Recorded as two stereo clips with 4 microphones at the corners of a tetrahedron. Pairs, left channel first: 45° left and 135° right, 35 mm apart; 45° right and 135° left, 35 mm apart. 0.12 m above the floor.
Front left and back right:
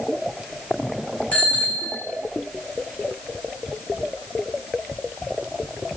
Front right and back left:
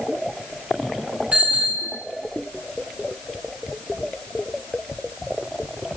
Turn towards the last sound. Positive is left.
turn(degrees=80)